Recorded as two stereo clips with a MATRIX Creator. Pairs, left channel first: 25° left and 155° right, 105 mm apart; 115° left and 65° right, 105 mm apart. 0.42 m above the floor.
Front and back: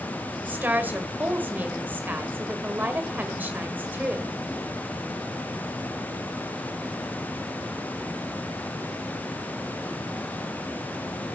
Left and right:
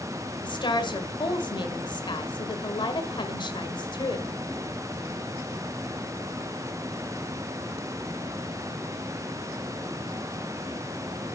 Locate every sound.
0.4 s a woman speaking: 135° left, 1.8 m